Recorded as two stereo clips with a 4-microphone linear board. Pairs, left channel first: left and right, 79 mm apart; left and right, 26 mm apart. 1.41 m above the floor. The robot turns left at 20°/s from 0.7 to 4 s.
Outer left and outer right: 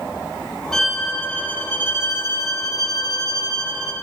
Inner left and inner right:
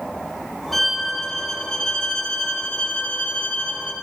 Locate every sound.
0.7 s a violin: 175° left, 1.3 m; by 3.9 s 110° left, 1.3 m